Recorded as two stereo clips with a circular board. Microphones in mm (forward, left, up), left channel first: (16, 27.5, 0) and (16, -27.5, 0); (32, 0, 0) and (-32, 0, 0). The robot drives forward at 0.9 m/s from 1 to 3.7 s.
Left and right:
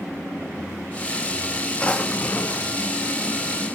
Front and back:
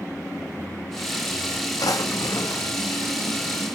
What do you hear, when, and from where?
1.8 s a drawer: 20° left, 1.2 m; by 2.7 s 55° left, 0.6 m